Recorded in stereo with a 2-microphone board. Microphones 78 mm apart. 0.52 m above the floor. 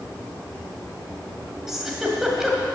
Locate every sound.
1.7 s a giggle: 5° right (ahead or behind), 1.8 m